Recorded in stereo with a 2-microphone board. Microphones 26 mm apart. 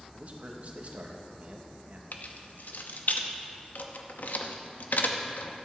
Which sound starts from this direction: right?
A man speaking, at 0.1 s.